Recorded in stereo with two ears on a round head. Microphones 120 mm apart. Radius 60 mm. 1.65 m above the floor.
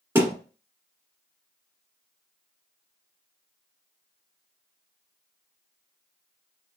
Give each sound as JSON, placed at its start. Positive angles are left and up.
{"t": 0.1, "sound": "a thud", "side_deg": -20, "distance_m": 1.7}